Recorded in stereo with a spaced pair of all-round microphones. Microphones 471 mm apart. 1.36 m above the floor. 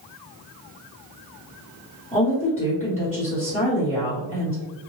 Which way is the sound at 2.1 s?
15° left (ahead or behind).